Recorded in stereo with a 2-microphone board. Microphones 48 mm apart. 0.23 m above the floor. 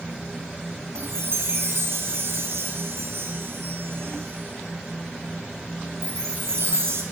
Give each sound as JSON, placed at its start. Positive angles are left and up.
{"t": 0.9, "sound": "a chime", "side_deg": -60, "distance_m": 4.5}